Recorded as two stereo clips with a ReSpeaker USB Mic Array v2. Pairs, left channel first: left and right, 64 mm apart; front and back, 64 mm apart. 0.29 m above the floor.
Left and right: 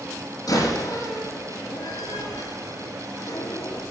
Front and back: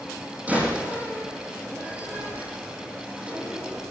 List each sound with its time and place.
0.5 s a door slam: 115° left, 8.5 m